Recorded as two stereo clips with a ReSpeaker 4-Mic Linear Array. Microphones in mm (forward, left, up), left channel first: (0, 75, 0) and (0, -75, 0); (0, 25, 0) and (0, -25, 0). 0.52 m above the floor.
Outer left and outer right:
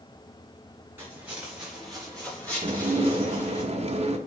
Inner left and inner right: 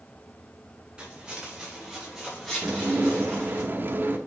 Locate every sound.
1.0 s footsteps: 15° right (ahead or behind), 4.5 m; by 3.6 s 20° left (ahead or behind), 6.5 m
2.6 s dishes clattering: 45° right (ahead or behind), 0.9 m